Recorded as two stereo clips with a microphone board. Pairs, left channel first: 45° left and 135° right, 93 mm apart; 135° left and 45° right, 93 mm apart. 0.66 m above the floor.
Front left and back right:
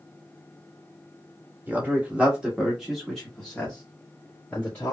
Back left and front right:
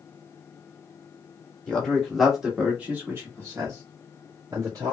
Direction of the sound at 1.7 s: 165° right.